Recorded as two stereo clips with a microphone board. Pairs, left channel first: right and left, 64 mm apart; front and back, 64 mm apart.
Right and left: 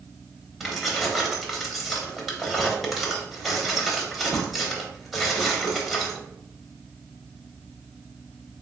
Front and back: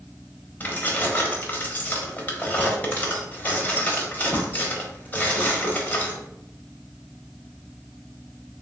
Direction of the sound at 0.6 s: Straight ahead.